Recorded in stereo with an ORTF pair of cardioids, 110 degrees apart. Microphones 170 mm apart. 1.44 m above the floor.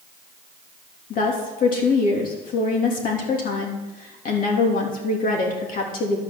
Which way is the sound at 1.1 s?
55° left.